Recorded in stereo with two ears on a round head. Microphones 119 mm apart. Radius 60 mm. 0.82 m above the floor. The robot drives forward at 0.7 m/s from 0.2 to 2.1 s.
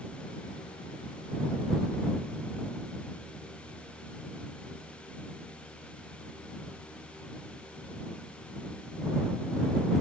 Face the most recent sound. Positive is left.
No sound to turn to.